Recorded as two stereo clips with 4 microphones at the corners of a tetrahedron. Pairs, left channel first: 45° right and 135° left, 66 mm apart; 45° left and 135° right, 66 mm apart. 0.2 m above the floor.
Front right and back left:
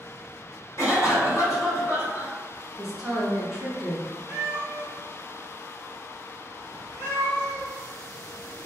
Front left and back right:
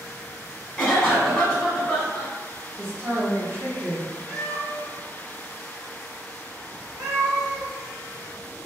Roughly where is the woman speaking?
Behind right.